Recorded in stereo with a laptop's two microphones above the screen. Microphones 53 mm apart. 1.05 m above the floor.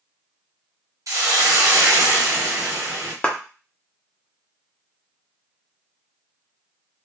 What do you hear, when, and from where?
1.1 s a hiss: 85° right, 0.7 m
3.2 s a clap: 20° left (ahead or behind), 0.7 m